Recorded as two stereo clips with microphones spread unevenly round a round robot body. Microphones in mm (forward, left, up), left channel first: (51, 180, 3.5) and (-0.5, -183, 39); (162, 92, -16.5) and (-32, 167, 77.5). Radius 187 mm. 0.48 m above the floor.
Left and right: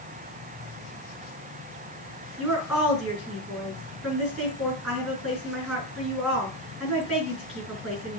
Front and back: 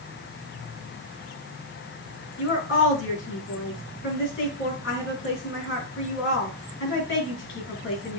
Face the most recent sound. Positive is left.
turn(degrees=-10)